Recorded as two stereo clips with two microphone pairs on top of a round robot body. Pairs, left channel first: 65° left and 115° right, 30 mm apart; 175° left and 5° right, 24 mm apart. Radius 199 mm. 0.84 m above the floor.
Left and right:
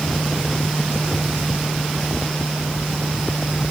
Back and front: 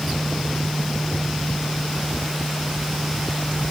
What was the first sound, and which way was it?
Only background noise.